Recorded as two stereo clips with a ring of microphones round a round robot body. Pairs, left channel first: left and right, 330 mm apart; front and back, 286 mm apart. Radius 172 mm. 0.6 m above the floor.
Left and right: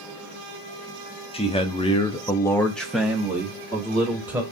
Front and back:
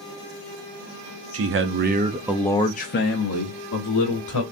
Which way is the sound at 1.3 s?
160° left.